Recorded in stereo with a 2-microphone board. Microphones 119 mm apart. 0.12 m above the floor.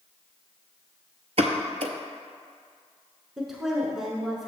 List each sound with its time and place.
1.4 s a pop: 60° right (ahead or behind), 0.6 m
3.4 s a woman speaking: 5° right (ahead or behind), 1.2 m